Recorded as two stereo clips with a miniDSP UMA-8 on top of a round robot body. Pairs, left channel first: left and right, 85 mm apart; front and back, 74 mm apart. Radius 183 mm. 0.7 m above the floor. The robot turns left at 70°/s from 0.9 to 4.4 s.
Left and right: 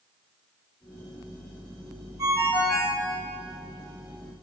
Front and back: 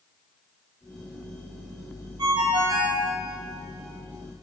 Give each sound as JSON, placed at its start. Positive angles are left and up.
{"t": 2.2, "sound": "a ringtone", "azimuth_deg": -145, "distance_m": 1.3}